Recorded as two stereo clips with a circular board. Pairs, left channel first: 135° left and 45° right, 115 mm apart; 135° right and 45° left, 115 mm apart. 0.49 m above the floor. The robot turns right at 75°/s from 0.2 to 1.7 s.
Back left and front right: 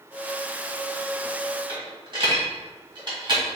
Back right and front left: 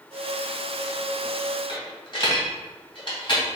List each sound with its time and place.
1.7 s a dropped coin: 90° right, 1.7 m